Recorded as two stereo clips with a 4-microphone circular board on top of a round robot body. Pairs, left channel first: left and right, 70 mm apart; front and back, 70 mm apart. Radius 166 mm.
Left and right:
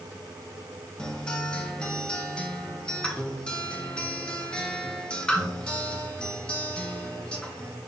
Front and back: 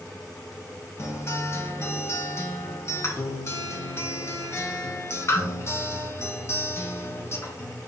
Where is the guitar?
20° left, 0.8 m.